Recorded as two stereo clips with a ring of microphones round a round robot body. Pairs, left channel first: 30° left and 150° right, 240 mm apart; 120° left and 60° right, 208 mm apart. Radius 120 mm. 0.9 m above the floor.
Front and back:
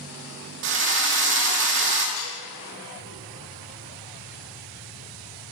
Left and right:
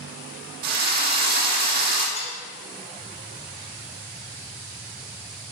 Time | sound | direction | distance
0.6 | a drill | 110° right | 2 m
2.2 | dishes clattering | 60° left | 5 m